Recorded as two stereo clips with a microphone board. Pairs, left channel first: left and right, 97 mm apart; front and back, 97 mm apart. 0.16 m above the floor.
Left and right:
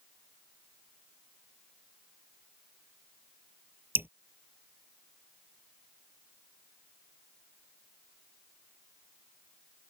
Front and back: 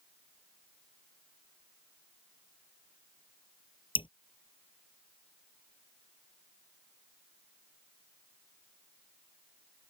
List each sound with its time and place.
4.0 s dripping: 20° right